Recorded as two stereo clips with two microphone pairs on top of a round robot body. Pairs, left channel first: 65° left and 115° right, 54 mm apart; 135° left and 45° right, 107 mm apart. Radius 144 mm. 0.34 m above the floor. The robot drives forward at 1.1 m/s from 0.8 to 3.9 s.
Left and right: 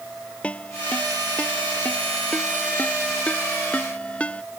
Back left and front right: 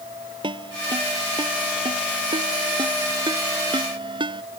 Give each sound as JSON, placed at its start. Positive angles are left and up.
{"t": 0.4, "sound": "a ringtone", "azimuth_deg": 0}